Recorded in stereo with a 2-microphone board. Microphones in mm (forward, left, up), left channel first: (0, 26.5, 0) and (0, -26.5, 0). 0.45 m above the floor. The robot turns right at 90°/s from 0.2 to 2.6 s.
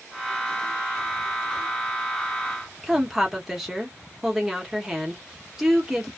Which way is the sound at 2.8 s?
5° right (ahead or behind).